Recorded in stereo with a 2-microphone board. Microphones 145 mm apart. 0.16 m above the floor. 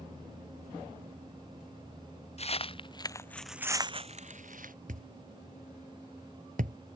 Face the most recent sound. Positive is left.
turn(degrees=-70)  # may be behind; listen again after turning